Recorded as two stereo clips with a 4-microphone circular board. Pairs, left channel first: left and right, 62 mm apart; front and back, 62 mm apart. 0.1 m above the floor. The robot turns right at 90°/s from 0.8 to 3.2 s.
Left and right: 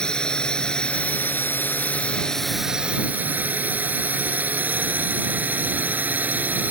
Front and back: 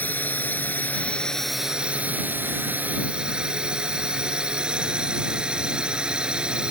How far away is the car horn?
I don't hear a car horn.